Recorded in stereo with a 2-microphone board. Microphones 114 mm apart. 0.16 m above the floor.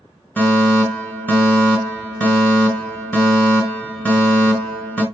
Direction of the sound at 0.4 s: 15° left (ahead or behind).